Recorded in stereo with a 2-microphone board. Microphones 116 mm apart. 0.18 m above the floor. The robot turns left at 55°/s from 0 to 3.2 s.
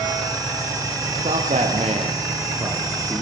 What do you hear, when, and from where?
1.2 s a man speaking: 70° right (ahead or behind), 6.5 m; by 3.2 s 5° left (ahead or behind), 6.5 m